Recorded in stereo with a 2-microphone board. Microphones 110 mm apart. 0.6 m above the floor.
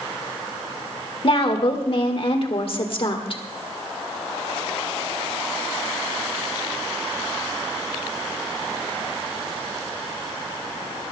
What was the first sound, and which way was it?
A woman speaking, 55° left (ahead or behind).